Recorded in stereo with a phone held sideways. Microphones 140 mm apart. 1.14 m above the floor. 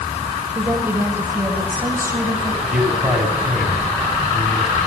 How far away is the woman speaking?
About 5.5 m.